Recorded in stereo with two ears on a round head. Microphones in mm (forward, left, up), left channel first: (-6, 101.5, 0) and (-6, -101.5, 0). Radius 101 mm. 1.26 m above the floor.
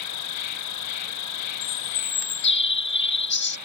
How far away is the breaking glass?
No breaking glass in this recording.